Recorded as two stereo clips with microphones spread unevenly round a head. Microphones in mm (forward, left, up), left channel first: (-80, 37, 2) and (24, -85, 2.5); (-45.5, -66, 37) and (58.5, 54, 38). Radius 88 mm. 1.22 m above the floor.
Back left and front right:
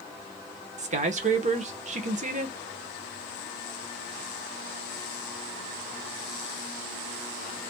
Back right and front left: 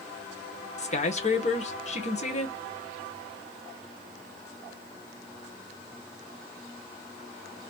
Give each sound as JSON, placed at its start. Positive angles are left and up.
{"t": 0.8, "sound": "a man speaking", "azimuth_deg": -90, "distance_m": 1.2}